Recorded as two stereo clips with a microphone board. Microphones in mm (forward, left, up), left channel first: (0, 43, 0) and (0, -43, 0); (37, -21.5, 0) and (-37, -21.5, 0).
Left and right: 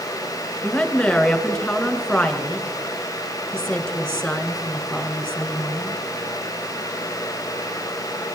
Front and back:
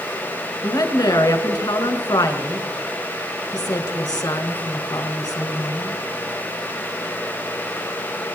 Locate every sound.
0.6 s a woman speaking: 10° left, 2.5 m